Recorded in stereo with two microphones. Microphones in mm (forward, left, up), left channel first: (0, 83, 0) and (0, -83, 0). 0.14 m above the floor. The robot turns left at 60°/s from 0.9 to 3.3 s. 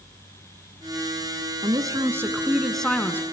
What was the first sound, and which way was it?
A woman speaking, 25° right (ahead or behind).